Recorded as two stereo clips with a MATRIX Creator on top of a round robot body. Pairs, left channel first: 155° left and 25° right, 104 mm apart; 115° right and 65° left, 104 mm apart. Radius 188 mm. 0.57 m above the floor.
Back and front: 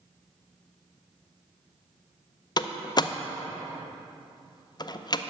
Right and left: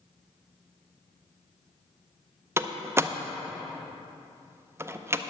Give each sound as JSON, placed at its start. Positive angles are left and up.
{"t": 2.6, "sound": "a door slam", "azimuth_deg": 125, "distance_m": 0.7}